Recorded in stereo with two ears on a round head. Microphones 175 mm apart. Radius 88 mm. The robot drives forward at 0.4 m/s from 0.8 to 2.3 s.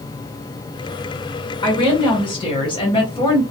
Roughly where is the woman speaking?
Left.